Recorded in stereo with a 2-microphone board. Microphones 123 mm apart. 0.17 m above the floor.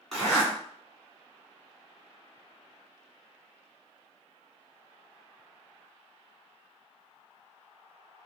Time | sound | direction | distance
0.1 | a zipper | centre (ahead or behind) | 1.9 m